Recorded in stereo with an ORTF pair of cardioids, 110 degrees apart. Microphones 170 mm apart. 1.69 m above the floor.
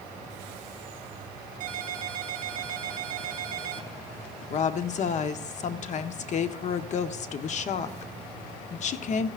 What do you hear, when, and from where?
1.6 s a ringtone: 55° right, 1.8 m
4.5 s a woman speaking: 45° left, 0.9 m